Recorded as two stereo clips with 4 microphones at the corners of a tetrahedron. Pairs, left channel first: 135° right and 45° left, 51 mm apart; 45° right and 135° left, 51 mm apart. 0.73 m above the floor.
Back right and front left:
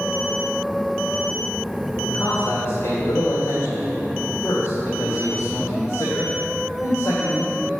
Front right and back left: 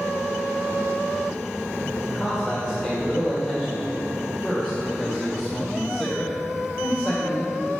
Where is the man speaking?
140° right, 2 m.